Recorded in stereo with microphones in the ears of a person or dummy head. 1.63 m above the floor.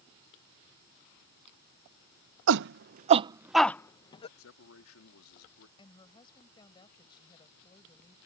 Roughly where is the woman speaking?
Left.